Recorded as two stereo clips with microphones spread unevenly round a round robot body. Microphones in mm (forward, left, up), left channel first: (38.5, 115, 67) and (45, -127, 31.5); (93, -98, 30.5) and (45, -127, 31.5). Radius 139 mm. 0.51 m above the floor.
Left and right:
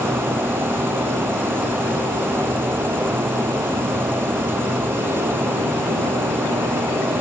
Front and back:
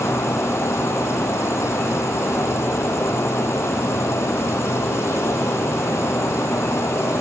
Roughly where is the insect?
Ahead.